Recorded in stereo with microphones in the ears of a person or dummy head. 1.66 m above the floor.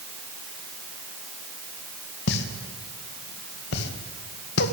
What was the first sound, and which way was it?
A pop, 60° left (ahead or behind).